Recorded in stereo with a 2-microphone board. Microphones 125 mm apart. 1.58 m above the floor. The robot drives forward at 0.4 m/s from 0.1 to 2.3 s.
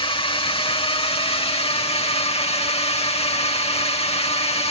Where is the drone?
45° left (ahead or behind); by 4.7 s 55° left (ahead or behind).